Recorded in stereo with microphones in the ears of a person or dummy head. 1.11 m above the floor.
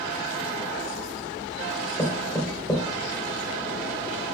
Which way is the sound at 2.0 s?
5° left (ahead or behind).